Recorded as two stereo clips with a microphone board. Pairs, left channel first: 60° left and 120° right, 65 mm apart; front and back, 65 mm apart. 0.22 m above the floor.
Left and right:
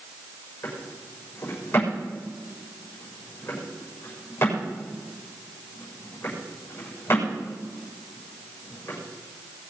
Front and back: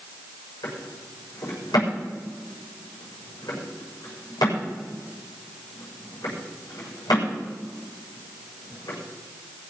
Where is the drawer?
5° left, 6.5 m.